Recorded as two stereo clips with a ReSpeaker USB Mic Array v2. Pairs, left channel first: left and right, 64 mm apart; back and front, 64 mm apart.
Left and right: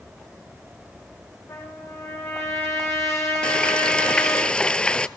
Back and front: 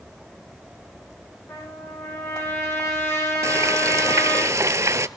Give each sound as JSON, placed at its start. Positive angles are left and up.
{"t": 1.5, "sound": "a trumpet", "azimuth_deg": 135, "distance_m": 7.0}
{"t": 3.4, "sound": "frying", "azimuth_deg": 20, "distance_m": 0.5}